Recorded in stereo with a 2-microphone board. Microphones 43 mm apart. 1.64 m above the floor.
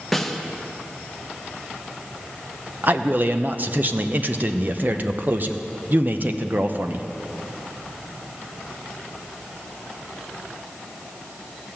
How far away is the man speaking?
About 0.8 m.